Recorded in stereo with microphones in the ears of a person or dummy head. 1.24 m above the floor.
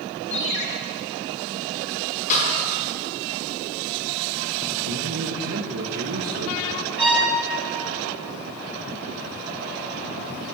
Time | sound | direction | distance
0.3 | a ringtone | 65° left (ahead or behind) | 1.5 m
2.3 | a snare drum | 45° left (ahead or behind) | 4 m
4.9 | a man speaking | 75° right (ahead or behind) | 1.4 m
7.0 | a violin | 5° right (ahead or behind) | 5 m